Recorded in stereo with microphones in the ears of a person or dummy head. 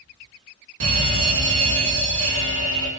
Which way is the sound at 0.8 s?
80° right.